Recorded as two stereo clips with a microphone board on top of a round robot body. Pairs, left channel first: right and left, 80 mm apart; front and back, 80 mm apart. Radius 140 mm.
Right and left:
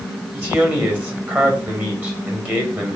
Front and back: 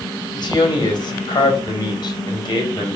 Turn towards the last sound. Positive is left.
turn(degrees=25)